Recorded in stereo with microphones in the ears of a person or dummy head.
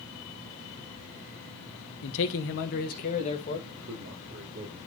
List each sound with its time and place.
2.0 s a man speaking: 65° left (ahead or behind), 1.1 m; by 3.6 s 40° left (ahead or behind), 2.0 m
3.7 s a man speaking: 70° right (ahead or behind), 3.5 m